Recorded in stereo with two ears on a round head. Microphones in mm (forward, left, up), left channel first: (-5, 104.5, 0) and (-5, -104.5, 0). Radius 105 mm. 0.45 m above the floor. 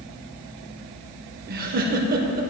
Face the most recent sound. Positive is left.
turn(degrees=-40)  # may be behind; listen again after turning